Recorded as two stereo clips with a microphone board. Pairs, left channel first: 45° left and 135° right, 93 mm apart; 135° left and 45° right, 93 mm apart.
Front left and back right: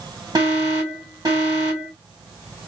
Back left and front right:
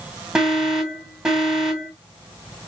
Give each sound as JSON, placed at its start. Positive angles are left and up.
{"t": 0.3, "sound": "an alarm", "azimuth_deg": -125, "distance_m": 2.5}